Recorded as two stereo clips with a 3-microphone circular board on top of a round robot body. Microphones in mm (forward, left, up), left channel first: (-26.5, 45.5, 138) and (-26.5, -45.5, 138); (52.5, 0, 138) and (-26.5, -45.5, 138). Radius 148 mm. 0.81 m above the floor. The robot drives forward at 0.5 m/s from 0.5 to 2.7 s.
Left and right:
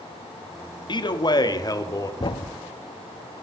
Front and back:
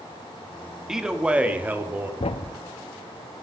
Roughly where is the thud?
Ahead left.